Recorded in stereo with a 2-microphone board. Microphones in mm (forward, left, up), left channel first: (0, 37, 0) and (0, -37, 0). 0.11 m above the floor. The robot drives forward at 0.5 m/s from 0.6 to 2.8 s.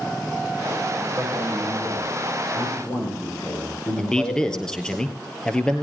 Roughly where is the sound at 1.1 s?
Left.